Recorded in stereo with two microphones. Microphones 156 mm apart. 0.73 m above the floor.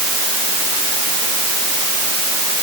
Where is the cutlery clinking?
No cutlery clinking in this recording.